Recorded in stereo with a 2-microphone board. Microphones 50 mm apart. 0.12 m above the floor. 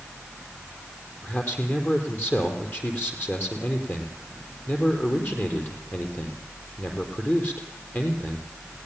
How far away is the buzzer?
No buzzer in this recording.